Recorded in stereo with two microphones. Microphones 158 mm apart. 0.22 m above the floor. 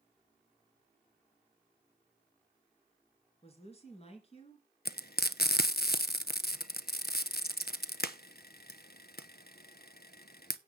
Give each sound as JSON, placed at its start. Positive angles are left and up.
{"t": 3.4, "sound": "a woman speaking", "side_deg": 40, "distance_m": 3.5}
{"t": 4.8, "sound": "frying", "side_deg": 75, "distance_m": 0.7}